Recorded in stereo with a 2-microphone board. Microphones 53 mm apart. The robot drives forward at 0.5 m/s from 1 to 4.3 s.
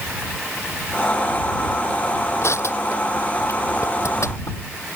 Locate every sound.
2.4 s crushing: 60° left (ahead or behind); by 4.6 s 65° left (ahead or behind)